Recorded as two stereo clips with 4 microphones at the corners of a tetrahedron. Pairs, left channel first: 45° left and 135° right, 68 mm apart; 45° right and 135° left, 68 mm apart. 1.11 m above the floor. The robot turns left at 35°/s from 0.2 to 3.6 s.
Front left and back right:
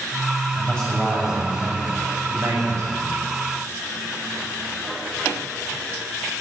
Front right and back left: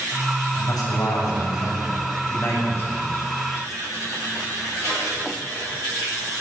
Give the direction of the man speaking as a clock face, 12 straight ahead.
1 o'clock.